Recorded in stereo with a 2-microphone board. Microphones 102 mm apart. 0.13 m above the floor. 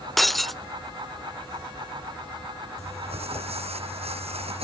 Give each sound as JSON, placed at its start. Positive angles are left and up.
{"t": 0.2, "sound": "breaking glass", "side_deg": 0}
{"t": 2.8, "sound": "crumpling", "side_deg": -80}